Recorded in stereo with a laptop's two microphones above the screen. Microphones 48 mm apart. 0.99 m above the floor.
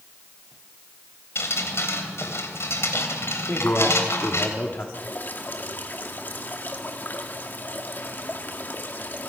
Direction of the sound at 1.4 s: 60° left (ahead or behind).